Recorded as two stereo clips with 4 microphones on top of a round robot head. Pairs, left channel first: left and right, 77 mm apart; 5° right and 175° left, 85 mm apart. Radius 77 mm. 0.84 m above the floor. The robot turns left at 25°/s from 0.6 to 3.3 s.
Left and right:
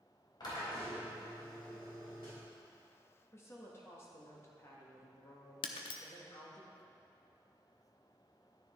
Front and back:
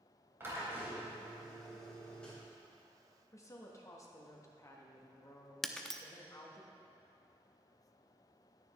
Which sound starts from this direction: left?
Breaking glass, at 5.6 s.